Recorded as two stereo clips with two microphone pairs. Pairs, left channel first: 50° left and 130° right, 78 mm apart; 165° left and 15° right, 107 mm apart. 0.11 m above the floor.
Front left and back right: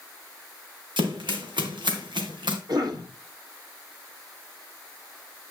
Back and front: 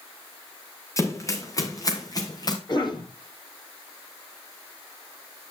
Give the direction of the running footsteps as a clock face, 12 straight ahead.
4 o'clock.